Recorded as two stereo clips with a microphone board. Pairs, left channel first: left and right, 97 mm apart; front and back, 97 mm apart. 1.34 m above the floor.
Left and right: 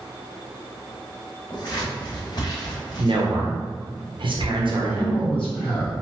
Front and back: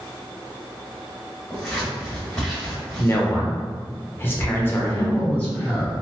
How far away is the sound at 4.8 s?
About 1.3 m.